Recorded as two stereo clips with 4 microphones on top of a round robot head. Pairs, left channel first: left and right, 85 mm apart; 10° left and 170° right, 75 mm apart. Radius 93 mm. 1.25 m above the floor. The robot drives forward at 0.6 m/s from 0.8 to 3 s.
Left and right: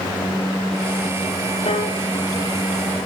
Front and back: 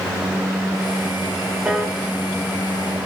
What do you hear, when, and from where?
1.6 s a piano: 110° left, 2.5 m; by 2.0 s 115° left, 2.5 m